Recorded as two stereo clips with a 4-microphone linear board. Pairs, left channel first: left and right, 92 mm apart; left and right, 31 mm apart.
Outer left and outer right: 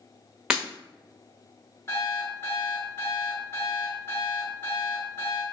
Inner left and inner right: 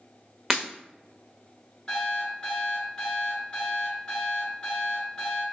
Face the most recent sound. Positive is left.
turn(degrees=30)  # may be behind; listen again after turning